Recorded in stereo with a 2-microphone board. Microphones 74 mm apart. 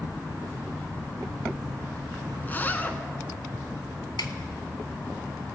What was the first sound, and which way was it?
A zipper, 25° left (ahead or behind).